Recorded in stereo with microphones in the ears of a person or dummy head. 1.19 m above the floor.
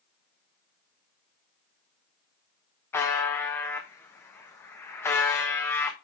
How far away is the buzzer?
About 1.3 m.